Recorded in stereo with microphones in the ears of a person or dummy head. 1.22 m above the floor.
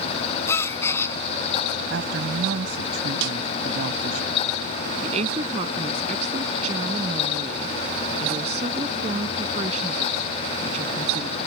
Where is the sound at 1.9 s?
65° right (ahead or behind).